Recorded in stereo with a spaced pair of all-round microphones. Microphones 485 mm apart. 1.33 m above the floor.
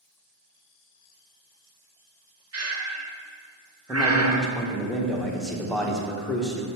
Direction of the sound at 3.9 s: Centre (ahead or behind).